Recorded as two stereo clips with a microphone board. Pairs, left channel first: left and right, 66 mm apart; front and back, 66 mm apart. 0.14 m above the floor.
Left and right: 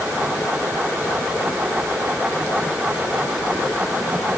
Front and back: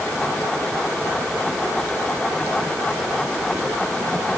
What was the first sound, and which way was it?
Only background noise.